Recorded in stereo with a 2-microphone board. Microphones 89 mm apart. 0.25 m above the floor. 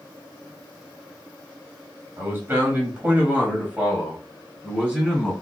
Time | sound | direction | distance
2.2 | a man speaking | 25° right (ahead or behind) | 1.6 m